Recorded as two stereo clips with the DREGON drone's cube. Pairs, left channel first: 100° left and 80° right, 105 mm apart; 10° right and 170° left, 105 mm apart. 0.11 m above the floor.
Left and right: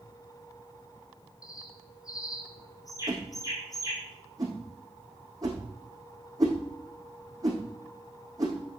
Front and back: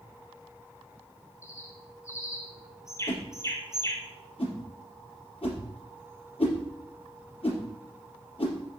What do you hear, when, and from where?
1.4 s a bird: 50° left, 3.5 m
3.1 s a whoosh: 30° right, 4.5 m